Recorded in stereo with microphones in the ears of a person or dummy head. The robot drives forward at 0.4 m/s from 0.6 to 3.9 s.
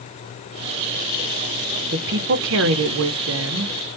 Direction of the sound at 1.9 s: 60° right (ahead or behind).